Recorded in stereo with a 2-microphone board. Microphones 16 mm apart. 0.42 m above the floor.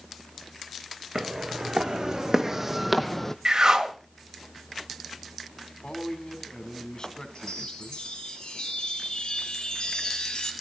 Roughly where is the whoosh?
Right.